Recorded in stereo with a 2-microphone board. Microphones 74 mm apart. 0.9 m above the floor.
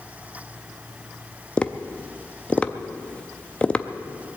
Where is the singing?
I don't hear singing.